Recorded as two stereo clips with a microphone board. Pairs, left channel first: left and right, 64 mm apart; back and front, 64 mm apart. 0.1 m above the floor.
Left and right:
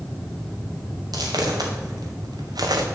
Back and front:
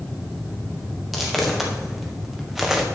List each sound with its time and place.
1.1 s footsteps: 90° right, 2 m; by 2.9 s 85° right, 1.3 m